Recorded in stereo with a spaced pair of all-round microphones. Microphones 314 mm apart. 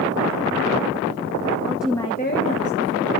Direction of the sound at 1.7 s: 10° right (ahead or behind).